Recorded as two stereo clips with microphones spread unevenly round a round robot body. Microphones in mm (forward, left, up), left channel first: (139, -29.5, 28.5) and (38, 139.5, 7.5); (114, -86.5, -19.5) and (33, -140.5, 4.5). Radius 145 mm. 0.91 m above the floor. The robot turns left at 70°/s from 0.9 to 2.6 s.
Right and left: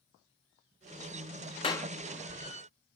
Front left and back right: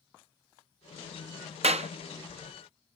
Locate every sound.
1.6 s a clap: 130° right; by 1.9 s 150° right